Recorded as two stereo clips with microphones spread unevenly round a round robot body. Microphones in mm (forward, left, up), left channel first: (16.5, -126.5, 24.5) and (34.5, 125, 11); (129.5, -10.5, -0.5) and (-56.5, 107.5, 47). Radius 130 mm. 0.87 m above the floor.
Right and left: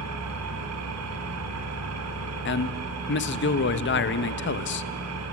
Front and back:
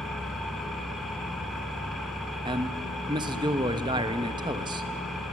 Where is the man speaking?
135° right, 0.8 m.